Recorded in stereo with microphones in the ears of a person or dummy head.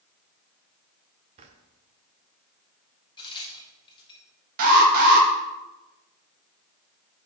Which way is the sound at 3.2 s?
25° left (ahead or behind).